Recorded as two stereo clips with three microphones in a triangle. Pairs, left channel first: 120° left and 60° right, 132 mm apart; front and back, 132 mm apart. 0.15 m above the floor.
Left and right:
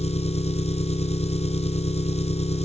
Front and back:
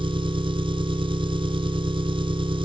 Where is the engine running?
140° left, 1.4 m.